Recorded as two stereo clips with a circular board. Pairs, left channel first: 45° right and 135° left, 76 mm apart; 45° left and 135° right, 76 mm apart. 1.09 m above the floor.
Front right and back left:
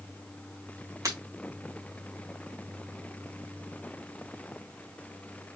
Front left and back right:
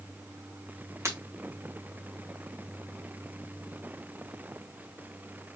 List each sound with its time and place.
1.1 s breaking glass: 175° left, 1.9 m